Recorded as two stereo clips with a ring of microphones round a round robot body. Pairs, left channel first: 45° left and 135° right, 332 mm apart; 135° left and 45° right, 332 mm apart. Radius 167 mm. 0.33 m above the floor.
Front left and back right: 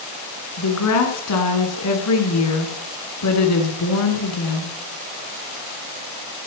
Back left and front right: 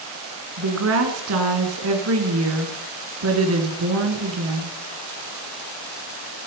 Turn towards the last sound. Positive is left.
turn(degrees=5)